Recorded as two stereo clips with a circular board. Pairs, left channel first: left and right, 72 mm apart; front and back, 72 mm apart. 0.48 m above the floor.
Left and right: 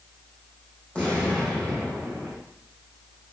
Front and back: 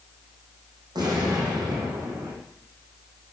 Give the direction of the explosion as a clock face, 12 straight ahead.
6 o'clock.